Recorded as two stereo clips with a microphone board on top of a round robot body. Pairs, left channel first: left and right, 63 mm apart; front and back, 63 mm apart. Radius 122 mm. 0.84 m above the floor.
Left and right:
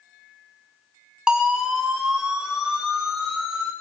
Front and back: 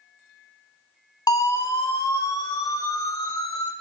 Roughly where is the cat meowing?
No cat meowing in this recording.